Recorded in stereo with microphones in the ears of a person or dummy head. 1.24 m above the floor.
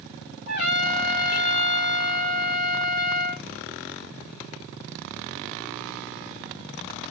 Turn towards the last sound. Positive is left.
turn(degrees=50)  # may be behind; listen again after turning